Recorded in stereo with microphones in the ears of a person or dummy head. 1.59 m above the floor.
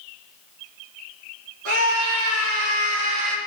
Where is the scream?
80° right, 3.5 m; by 3.4 s 85° right, 2.5 m.